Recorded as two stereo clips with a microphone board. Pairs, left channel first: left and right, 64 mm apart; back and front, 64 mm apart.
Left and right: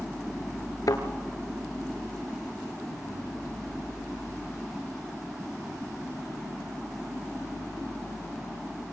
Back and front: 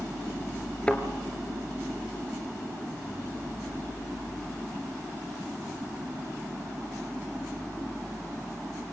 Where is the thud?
110° left, 2 m.